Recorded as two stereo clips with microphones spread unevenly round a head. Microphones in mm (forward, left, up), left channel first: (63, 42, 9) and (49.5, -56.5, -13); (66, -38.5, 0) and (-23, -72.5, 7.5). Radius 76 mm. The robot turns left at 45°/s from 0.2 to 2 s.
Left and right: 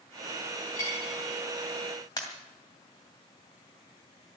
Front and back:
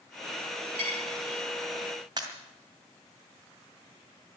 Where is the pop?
140° left, 2.5 m.